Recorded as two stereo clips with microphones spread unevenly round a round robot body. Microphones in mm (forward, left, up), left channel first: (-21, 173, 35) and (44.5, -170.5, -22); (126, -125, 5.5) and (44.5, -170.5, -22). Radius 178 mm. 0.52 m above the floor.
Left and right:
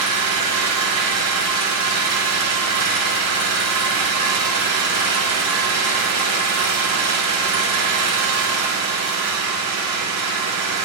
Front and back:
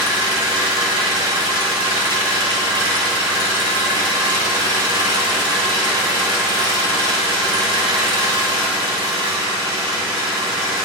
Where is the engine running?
125° right, 1.8 m.